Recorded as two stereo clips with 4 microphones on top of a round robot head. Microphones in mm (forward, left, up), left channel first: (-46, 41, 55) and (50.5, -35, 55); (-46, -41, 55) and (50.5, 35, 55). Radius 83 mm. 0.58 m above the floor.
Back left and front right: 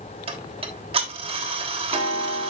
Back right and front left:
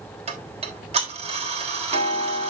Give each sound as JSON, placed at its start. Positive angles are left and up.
{"t": 0.3, "sound": "ticking", "azimuth_deg": 5, "distance_m": 3.0}